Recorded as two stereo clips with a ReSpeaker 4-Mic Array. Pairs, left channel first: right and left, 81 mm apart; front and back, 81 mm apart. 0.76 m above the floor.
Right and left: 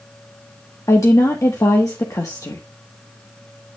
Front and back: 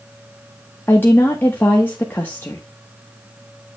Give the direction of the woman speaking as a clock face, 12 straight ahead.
2 o'clock.